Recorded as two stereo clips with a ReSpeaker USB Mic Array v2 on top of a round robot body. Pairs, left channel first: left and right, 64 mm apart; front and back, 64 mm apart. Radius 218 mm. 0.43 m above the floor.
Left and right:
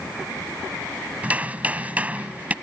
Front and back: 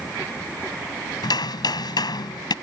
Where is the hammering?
20° right.